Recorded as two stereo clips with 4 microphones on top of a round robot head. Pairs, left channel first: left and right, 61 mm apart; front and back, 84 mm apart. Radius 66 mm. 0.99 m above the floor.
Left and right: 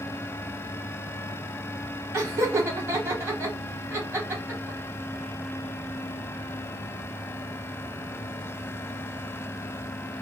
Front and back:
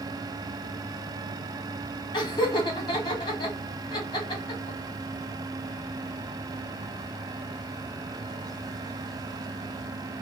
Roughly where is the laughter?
Ahead right.